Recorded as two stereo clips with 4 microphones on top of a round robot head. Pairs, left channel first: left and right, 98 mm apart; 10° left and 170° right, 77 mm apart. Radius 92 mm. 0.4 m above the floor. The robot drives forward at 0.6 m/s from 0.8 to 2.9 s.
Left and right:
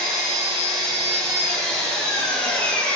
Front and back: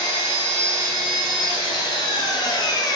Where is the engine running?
5° left, 2.5 m; by 3.0 s 15° left, 1.3 m.